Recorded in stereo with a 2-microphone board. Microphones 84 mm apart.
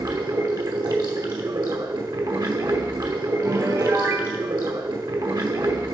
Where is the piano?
40° right (ahead or behind), 0.6 m.